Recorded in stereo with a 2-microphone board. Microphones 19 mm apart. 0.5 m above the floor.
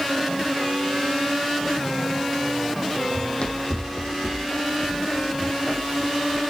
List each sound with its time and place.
3.1 s running footsteps: 55° left (ahead or behind), 1.2 m; by 6.4 s 15° left (ahead or behind), 3 m